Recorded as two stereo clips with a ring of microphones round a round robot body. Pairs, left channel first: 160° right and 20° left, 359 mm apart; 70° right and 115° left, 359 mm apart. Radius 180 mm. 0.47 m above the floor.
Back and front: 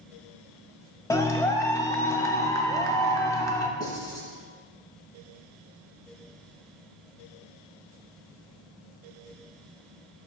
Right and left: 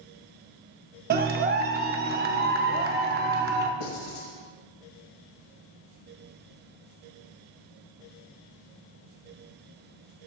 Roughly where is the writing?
Right.